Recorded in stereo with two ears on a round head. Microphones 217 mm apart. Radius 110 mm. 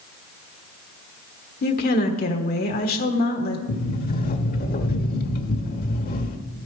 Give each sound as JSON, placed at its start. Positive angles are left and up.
{"t": 1.6, "sound": "a woman speaking", "side_deg": 40, "distance_m": 1.2}
{"t": 3.7, "sound": "a sliding door", "side_deg": 40, "distance_m": 1.2}